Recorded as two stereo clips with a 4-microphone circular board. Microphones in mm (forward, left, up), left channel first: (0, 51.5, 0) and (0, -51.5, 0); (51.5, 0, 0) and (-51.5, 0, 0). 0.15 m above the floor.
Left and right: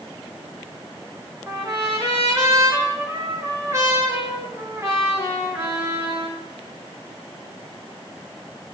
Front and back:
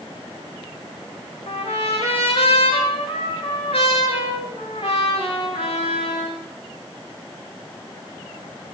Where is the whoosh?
No whoosh in this recording.